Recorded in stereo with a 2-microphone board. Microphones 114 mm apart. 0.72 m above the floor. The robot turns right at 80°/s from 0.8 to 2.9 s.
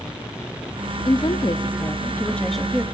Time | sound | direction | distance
1.1 | a woman speaking | 60° left | 0.7 m